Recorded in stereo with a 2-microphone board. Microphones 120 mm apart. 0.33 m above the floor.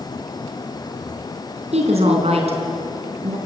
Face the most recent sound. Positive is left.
turn(degrees=-60)  # may be behind; listen again after turning